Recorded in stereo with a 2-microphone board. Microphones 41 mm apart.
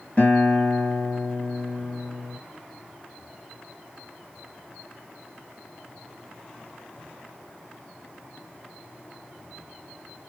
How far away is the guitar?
About 1.7 m.